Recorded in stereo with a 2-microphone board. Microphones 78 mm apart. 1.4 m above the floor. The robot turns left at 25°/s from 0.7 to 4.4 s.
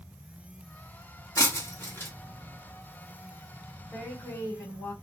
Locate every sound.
1.4 s breaking glass: 40° left (ahead or behind), 1.1 m; by 2.1 s 30° left (ahead or behind), 1.1 m
3.9 s a woman speaking: 40° left (ahead or behind), 1.6 m; by 4.9 s 25° left (ahead or behind), 1.6 m